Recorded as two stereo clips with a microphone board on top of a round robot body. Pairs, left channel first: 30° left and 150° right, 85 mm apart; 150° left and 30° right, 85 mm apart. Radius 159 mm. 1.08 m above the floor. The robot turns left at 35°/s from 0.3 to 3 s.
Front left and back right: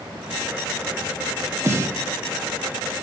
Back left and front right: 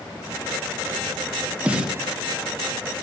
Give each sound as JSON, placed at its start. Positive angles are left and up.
{"t": 1.6, "sound": "a snare drum", "azimuth_deg": -100, "distance_m": 1.0}